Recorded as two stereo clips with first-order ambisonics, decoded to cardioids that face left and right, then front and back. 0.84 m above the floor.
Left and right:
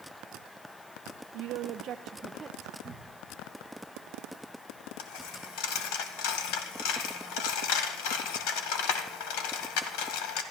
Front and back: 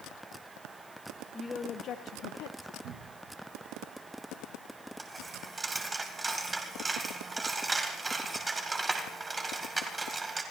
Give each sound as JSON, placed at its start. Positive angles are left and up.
{"t": 1.3, "sound": "a woman speaking", "azimuth_deg": -75, "distance_m": 0.8}
{"t": 2.8, "sound": "a cupboard door", "azimuth_deg": -150, "distance_m": 1.3}
{"t": 5.0, "sound": "a dropped coin", "azimuth_deg": 100, "distance_m": 1.8}